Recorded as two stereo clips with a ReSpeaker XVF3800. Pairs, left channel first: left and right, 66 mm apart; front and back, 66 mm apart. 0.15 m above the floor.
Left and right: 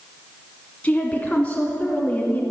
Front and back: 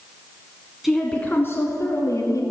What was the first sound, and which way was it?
A woman speaking, 95° left.